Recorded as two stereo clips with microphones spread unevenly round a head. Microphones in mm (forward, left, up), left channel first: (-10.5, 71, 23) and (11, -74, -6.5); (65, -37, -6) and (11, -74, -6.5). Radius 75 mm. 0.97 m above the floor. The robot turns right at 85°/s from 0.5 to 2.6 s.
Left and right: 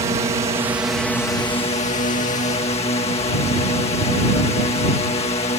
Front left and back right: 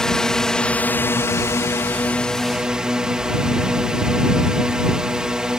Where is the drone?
40° right; by 5.6 s 135° left.